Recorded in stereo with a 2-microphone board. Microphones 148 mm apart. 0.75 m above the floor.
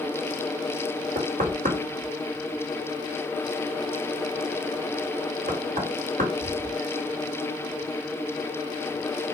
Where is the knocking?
70° right (ahead or behind), 2.0 m.